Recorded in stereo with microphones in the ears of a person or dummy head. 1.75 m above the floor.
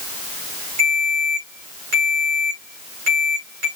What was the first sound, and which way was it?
A ringtone, 55° right (ahead or behind).